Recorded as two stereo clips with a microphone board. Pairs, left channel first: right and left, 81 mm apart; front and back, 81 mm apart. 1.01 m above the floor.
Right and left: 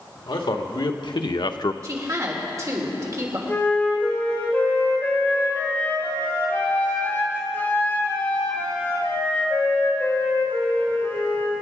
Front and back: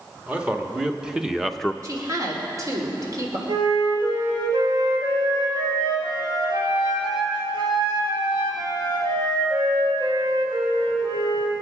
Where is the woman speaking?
135° left, 3 m.